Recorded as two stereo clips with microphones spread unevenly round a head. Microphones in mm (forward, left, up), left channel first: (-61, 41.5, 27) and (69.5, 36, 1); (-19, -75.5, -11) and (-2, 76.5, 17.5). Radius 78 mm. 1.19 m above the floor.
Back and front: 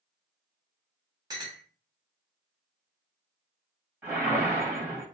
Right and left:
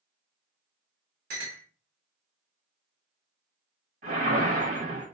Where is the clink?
60° left, 1.0 m.